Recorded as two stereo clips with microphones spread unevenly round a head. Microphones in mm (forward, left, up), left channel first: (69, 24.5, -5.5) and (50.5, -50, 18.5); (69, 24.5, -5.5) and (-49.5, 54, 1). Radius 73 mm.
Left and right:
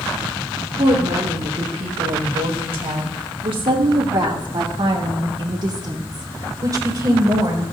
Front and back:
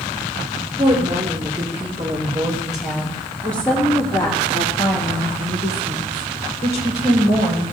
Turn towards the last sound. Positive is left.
turn(degrees=-60)